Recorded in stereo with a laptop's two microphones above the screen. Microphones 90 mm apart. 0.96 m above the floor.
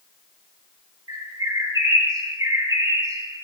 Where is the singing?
I don't hear singing.